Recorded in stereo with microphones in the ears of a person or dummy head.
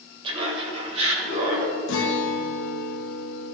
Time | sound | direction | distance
0.2 | laughter | 25° right (ahead or behind) | 2.5 m
1.9 | a guitar | 75° left (ahead or behind) | 0.8 m